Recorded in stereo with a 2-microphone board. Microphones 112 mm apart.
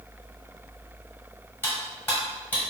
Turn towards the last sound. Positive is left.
turn(degrees=15)  # may be behind; listen again after turning